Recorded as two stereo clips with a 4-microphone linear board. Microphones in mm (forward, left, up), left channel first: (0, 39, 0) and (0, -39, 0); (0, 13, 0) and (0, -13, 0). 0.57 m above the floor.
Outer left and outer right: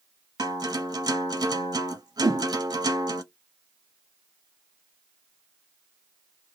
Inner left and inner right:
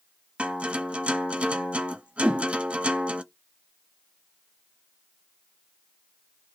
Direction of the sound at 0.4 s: 55° right (ahead or behind).